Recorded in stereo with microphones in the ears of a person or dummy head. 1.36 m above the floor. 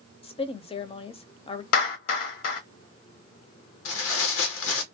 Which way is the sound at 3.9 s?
70° left (ahead or behind).